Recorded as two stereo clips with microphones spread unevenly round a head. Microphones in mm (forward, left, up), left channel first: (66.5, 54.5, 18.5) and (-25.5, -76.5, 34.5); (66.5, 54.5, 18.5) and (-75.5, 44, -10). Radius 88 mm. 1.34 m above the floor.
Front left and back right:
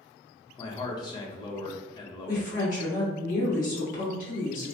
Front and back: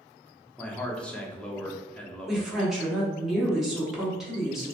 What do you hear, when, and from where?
0.6 s a man speaking: 95° left, 0.6 m
2.3 s a woman speaking: 100° left, 1.2 m